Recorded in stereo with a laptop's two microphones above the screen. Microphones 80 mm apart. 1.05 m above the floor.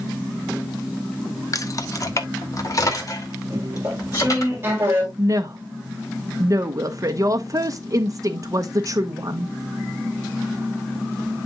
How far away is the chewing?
About 2.5 m.